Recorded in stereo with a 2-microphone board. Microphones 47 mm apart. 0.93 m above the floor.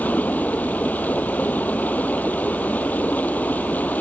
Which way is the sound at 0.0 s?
35° left (ahead or behind).